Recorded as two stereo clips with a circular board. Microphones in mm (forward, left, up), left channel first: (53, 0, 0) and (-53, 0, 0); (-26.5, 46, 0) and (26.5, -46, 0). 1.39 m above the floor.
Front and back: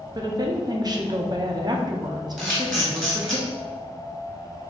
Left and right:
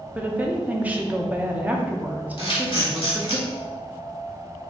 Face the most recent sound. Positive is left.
turn(degrees=85)